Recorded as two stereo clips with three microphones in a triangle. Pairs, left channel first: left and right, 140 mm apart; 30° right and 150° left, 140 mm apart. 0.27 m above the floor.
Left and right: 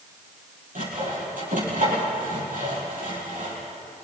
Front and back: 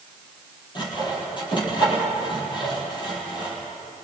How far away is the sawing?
About 7 m.